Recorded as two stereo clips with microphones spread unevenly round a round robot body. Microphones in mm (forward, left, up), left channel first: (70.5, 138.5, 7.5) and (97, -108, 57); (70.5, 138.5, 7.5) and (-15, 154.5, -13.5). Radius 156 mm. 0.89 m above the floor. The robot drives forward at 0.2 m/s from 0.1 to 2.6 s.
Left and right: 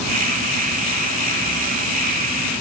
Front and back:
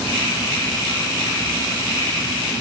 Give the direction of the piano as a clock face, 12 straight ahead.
No piano in this recording.